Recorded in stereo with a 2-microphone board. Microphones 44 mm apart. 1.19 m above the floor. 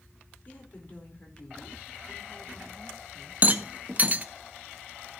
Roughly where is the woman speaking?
Left.